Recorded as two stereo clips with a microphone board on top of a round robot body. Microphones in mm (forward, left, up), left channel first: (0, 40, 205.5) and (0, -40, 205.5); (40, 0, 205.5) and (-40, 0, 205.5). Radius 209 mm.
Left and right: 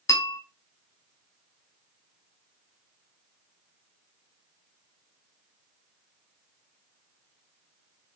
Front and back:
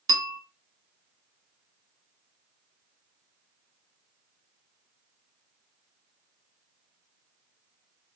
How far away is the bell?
About 0.5 m.